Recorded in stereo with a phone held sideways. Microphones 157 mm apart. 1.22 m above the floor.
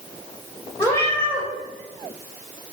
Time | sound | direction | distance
0.8 | a cat meowing | 20° left (ahead or behind) | 1.1 m